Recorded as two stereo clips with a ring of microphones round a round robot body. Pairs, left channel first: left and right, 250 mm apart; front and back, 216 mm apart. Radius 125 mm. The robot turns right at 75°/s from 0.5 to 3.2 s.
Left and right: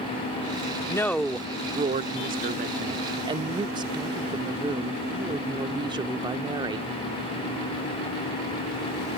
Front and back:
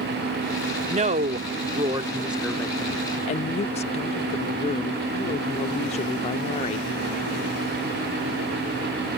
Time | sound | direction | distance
0.9 | a woman speaking | 150° left | ?